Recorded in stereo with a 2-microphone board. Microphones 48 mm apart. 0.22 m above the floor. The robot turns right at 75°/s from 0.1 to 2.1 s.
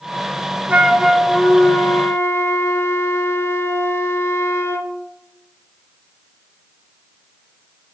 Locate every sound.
0.7 s a flute: 30° right, 0.5 m; by 4.9 s 75° left, 0.5 m